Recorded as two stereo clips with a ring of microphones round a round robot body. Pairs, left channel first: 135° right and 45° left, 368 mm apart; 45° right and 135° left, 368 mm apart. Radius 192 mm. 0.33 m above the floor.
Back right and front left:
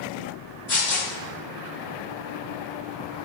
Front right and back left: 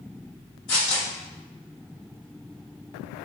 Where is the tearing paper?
80° right, 1.5 m.